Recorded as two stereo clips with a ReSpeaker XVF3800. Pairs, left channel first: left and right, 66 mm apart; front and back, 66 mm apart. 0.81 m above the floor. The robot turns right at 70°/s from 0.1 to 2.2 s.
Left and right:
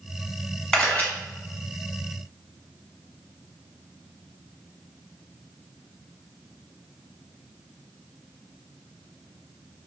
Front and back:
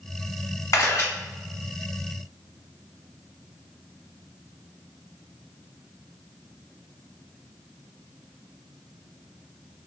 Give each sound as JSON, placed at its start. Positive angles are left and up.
{"t": 0.7, "sound": "a camera shutter", "azimuth_deg": 10, "distance_m": 1.2}